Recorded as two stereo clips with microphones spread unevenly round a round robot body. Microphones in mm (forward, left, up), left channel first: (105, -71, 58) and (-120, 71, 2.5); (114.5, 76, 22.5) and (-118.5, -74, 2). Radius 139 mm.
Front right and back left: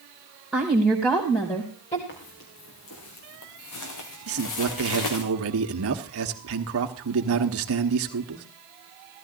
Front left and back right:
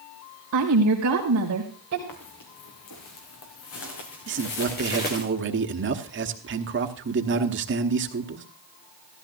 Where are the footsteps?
15° left, 3.5 m; by 5.2 s 25° right, 3 m.